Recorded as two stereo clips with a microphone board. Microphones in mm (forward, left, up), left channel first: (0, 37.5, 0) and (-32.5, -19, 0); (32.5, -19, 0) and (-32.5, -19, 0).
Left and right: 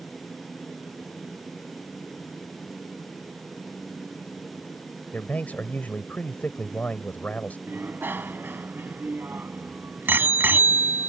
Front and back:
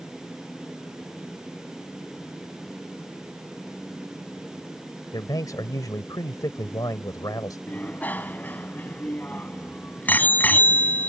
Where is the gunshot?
I don't hear a gunshot.